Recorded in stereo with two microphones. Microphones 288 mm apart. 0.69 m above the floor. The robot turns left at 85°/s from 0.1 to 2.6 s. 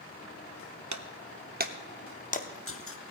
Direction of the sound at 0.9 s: 75° right (ahead or behind).